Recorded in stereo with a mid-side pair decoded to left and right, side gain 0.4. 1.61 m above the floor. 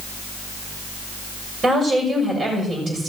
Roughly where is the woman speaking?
Ahead right.